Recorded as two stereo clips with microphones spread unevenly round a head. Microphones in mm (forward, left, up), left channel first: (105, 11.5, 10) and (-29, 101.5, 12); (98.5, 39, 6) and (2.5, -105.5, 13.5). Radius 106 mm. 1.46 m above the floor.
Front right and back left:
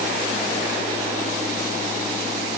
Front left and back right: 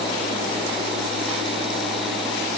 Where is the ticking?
I don't hear ticking.